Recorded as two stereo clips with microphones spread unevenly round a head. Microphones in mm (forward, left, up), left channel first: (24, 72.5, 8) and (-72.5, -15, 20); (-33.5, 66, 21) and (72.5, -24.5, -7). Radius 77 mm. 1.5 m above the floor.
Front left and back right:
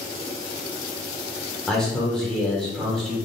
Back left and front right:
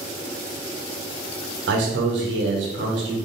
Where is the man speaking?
45° right, 1.1 m.